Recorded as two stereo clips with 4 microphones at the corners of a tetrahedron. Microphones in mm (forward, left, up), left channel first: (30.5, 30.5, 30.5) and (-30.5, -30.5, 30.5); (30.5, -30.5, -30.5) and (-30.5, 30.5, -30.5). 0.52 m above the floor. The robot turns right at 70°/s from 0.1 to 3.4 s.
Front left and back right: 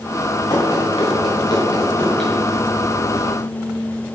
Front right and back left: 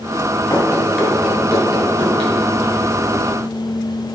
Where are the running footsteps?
10° left, 2.5 m; by 2.3 s 140° left, 3.5 m.